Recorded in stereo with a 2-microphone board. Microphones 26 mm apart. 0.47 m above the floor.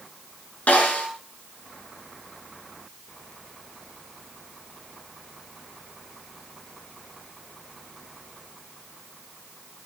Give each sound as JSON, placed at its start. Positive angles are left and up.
{"t": 0.7, "sound": "a snare drum", "side_deg": 80, "distance_m": 7.5}